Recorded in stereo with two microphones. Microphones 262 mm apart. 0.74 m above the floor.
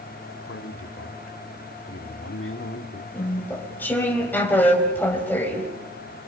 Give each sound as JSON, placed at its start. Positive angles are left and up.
{"t": 0.5, "sound": "a man speaking", "side_deg": 50, "distance_m": 1.8}
{"t": 3.1, "sound": "chewing", "side_deg": 5, "distance_m": 4.0}